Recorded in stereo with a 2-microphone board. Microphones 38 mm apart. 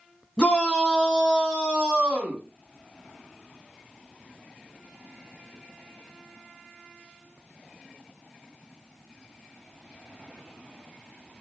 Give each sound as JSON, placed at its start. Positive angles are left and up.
{"t": 0.4, "sound": "a shout", "side_deg": 15, "distance_m": 1.4}